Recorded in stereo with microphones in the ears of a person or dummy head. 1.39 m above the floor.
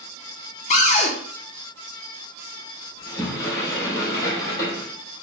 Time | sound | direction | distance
0.7 | a cupboard door | 35° left (ahead or behind) | 0.5 m
3.0 | a sliding door | 25° left (ahead or behind) | 2 m